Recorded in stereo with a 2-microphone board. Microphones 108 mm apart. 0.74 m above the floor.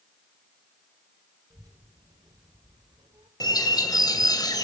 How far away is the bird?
About 2.5 m.